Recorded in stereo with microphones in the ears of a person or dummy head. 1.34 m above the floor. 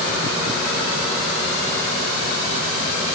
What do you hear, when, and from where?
Only background noise.